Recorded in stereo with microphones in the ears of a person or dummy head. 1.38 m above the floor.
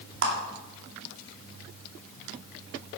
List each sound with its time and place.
0.2 s a clap: 65° right (ahead or behind), 2.5 m